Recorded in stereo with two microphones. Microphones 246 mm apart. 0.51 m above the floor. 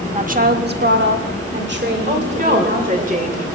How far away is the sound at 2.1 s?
About 2 m.